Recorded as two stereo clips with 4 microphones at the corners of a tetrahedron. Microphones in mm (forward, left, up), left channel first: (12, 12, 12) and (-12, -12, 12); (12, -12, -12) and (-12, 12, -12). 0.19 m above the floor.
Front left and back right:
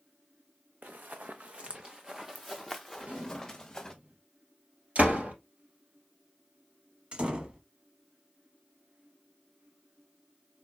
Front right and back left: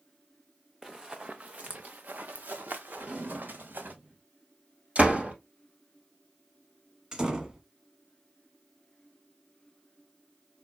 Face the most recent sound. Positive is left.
turn(degrees=-165)